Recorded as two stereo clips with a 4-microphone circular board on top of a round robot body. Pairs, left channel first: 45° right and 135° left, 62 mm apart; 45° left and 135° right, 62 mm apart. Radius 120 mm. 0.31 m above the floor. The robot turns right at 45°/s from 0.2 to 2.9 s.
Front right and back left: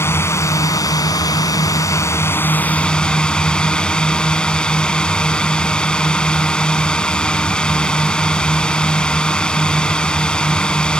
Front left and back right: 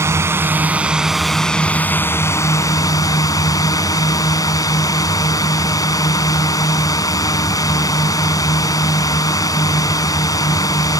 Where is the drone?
90° right; by 11.0 s 30° left.